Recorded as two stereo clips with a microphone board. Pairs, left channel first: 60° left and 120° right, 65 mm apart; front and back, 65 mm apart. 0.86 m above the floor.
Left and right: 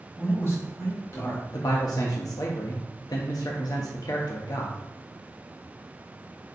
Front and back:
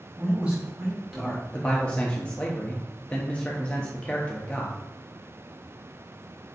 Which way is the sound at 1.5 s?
70° left.